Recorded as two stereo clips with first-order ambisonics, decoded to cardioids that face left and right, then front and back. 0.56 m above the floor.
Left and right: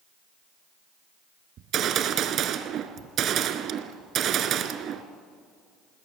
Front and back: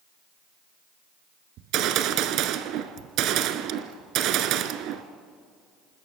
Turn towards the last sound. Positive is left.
turn(degrees=-140)